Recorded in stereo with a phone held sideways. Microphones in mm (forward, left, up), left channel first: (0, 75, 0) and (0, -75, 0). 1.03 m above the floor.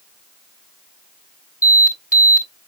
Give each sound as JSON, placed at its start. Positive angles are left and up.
{"t": 1.6, "sound": "an alarm", "side_deg": -55, "distance_m": 3.5}